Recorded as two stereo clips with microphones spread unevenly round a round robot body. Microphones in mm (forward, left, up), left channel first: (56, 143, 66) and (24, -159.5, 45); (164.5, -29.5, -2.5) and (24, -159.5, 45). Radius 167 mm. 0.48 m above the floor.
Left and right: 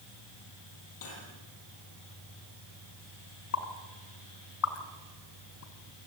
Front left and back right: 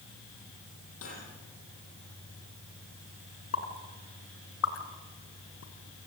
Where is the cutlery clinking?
65° left, 9 m.